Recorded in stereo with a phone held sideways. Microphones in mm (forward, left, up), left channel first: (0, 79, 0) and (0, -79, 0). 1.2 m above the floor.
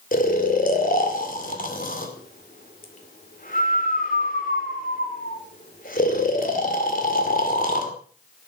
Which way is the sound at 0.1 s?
55° left (ahead or behind).